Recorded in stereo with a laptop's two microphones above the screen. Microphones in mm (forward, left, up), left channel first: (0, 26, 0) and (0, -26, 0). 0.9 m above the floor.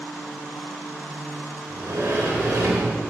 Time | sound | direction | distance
1.7 | a sliding door | 75° right (ahead or behind) | 2.5 m